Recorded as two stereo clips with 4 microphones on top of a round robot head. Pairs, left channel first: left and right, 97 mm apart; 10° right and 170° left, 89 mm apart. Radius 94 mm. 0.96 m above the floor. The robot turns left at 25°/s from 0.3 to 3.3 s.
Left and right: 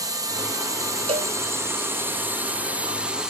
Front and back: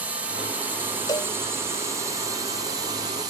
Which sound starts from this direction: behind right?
A drone, at 0.0 s.